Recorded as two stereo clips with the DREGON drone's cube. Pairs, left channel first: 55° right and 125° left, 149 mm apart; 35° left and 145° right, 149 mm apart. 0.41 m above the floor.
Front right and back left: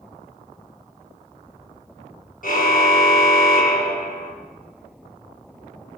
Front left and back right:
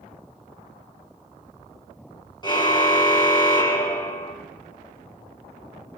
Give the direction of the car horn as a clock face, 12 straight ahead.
1 o'clock.